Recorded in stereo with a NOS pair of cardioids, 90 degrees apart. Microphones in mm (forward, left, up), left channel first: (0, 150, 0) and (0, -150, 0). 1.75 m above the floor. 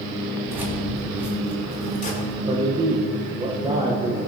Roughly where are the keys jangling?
Ahead.